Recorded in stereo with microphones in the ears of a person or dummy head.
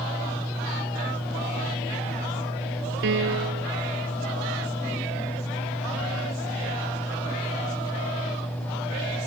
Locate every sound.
3.0 s a piano: 65° right (ahead or behind)